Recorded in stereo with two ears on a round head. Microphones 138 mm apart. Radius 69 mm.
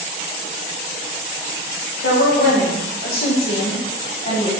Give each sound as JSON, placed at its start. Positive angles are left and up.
{"t": 2.0, "sound": "a woman speaking", "side_deg": 85, "distance_m": 3.5}